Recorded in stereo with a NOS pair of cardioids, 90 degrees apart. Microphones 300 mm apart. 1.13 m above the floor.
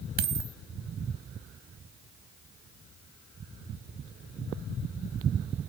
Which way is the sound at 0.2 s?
60° right.